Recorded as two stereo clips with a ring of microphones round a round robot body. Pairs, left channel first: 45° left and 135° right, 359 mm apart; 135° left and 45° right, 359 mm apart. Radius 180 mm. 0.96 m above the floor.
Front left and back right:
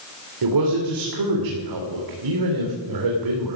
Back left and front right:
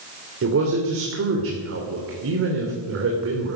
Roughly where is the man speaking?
Right.